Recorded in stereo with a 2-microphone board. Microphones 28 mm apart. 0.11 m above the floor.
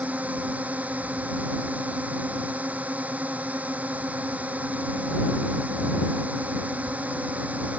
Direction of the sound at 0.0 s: 60° right (ahead or behind).